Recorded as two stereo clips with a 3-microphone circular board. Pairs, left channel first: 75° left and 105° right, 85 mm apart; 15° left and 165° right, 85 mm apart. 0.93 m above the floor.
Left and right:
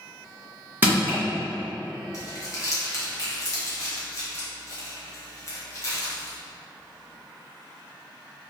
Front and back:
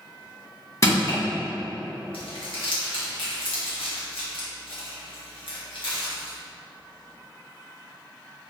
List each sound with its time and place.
0.8 s crushing: 35° right, 1.7 m
2.1 s crumpling: 20° left, 1.0 m